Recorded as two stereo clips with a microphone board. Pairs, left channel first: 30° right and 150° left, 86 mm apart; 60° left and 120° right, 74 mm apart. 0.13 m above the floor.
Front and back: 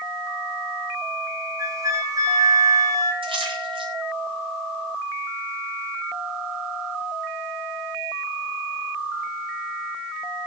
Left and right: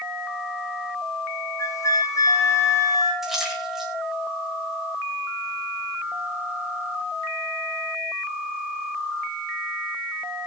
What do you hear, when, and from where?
1.6 s a flute: 100° left, 4 m
3.2 s a splash: 155° left, 6.5 m